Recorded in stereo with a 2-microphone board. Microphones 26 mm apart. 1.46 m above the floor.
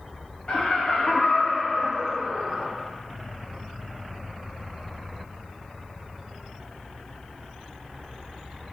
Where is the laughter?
60° left (ahead or behind), 0.7 m; by 2.7 s 40° right (ahead or behind), 0.9 m.